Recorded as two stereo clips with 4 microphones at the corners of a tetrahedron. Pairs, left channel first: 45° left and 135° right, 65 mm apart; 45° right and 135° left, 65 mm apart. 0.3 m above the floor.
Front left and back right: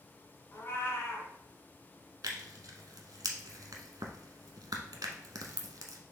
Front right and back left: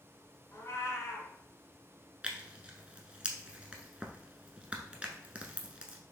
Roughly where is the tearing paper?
Behind right.